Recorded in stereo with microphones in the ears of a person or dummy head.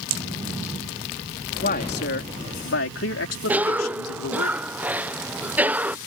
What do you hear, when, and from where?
1.6 s a man speaking: 50° left (ahead or behind); by 4.5 s 85° left
3.5 s a cough: 5° right (ahead or behind)